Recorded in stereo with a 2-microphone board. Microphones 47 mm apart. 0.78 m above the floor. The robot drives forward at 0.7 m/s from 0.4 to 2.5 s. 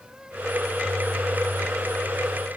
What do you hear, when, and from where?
Only background noise.